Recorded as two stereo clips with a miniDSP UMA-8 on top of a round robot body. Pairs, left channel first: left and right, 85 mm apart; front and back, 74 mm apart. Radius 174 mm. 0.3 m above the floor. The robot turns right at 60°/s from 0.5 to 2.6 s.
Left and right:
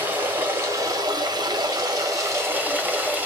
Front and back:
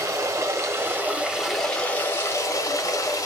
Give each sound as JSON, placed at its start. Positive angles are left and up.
{"t": 0.0, "sound": "running water", "azimuth_deg": -150, "distance_m": 1.4}